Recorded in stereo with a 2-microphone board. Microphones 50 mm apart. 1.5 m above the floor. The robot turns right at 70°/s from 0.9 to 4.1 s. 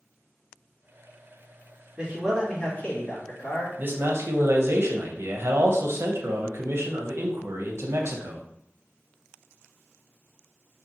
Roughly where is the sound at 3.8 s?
Right.